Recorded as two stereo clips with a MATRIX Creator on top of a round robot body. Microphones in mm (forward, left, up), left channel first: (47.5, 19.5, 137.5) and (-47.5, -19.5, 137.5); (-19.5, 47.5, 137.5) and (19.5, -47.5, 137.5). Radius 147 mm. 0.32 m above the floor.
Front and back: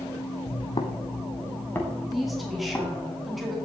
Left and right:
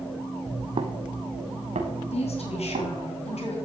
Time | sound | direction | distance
0.5 | footsteps | 5° right | 0.8 m
2.1 | a woman speaking | 115° left | 3.5 m